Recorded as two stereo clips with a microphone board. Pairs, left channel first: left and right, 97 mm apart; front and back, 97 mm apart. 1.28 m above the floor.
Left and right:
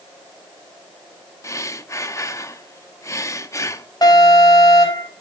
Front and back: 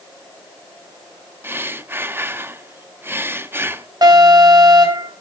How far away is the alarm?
About 5 m.